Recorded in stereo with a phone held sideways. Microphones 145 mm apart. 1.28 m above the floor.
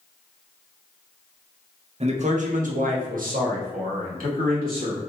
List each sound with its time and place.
2.0 s a man speaking: 45° right (ahead or behind), 0.6 m; by 5.0 s 85° right, 2 m